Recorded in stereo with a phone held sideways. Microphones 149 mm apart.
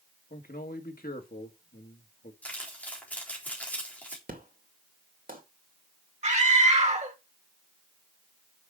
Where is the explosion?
75° right (ahead or behind), 2 m.